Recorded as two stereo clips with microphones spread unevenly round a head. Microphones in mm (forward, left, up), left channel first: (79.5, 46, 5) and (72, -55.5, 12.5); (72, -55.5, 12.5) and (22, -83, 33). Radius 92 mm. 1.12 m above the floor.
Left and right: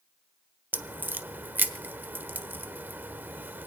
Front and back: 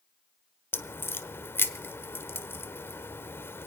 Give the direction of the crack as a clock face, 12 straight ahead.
1 o'clock.